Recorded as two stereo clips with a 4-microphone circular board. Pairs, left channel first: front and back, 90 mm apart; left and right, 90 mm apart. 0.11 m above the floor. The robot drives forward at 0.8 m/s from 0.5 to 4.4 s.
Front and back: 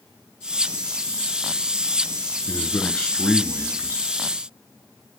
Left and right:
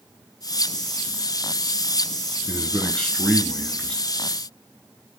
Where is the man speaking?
15° left, 1.2 m; by 4.0 s 165° left, 1.3 m.